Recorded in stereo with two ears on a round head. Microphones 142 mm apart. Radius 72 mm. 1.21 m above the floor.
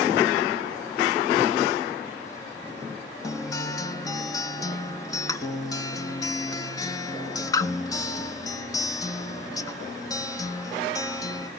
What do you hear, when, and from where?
3.2 s a guitar: 20° left (ahead or behind), 1.1 m